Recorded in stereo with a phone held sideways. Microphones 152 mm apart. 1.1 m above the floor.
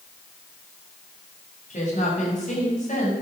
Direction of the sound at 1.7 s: 55° left (ahead or behind).